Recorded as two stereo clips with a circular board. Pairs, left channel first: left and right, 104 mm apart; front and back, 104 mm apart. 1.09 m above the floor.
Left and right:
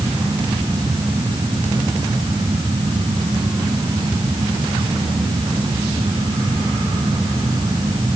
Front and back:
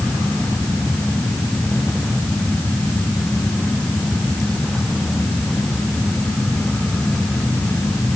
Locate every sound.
Only background noise.